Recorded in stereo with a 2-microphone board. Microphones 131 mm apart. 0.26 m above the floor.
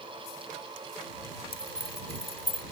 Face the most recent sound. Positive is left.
turn(degrees=45)  # may be behind; listen again after turning